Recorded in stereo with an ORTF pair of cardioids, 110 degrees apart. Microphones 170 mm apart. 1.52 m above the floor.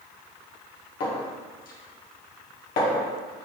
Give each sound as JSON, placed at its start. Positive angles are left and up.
{"t": 1.0, "sound": "a clink", "azimuth_deg": 60, "distance_m": 1.2}